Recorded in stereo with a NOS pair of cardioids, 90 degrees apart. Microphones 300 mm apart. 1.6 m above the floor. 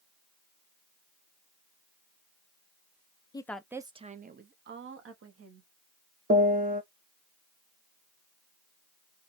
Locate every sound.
3.3 s a woman speaking: 15° left, 0.6 m; by 5.7 s 50° right, 1.5 m
6.3 s a piano: 30° right, 1.0 m